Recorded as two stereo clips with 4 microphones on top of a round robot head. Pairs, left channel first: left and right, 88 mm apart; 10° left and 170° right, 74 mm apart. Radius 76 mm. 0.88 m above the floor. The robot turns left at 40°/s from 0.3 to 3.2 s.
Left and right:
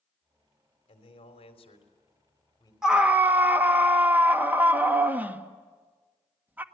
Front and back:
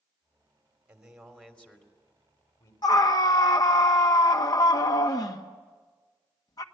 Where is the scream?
5° right, 1.6 m; by 6.6 s 20° right, 1.6 m.